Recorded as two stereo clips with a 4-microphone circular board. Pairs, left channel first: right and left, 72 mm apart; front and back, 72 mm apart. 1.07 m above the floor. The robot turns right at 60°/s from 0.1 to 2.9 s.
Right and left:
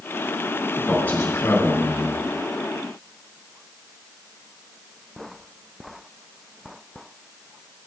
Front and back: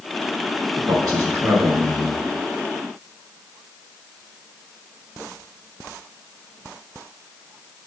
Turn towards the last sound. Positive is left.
turn(degrees=-50)